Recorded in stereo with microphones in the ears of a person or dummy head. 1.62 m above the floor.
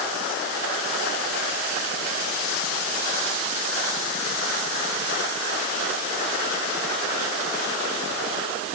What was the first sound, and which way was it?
Only background noise.